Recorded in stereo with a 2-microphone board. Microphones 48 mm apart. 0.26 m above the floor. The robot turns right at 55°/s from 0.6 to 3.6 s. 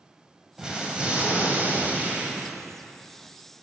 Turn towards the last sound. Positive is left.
turn(degrees=5)